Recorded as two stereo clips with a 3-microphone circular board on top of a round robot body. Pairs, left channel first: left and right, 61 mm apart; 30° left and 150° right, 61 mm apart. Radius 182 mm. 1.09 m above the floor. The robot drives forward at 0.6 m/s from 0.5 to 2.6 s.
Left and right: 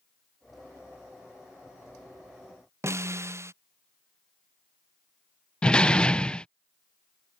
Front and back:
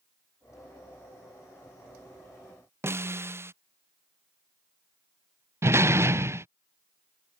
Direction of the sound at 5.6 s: 165° left.